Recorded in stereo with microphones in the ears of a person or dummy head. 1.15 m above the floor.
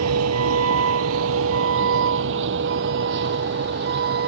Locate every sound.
0.0 s a vehicle: 90° right; by 4.3 s 55° right (ahead or behind)